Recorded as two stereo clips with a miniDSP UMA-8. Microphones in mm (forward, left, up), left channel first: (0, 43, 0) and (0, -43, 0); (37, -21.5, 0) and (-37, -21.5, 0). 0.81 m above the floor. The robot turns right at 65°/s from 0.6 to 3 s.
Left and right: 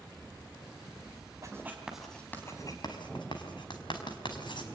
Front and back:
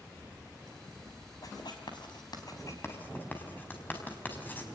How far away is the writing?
About 5 m.